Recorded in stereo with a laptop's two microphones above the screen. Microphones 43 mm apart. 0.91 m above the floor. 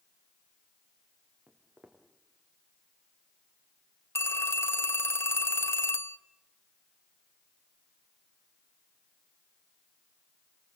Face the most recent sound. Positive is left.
turn(degrees=70)  # may be behind; listen again after turning